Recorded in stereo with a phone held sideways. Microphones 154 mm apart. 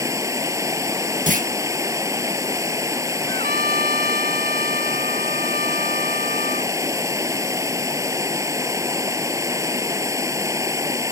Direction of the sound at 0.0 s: 20° right (ahead or behind).